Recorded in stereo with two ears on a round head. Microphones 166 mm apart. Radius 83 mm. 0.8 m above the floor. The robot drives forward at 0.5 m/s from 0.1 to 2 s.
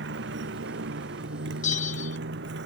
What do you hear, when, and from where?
0.0 s a motorcycle: 65° right (ahead or behind)
1.6 s a bell: 40° left (ahead or behind)